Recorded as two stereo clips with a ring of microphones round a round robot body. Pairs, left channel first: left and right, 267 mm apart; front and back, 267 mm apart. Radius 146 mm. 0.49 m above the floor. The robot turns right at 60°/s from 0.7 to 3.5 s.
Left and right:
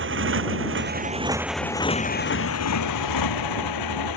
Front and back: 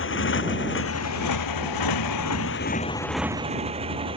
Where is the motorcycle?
45° right; by 4.2 s 105° left.